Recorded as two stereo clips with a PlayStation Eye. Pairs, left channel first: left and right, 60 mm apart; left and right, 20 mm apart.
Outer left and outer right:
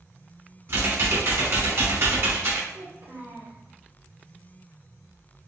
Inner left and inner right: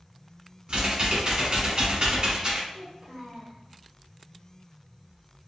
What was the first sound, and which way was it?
Typing on a keyboard, 50° right (ahead or behind).